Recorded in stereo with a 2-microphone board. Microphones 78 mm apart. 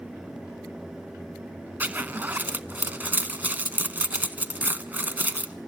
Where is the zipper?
25° right (ahead or behind), 0.8 m.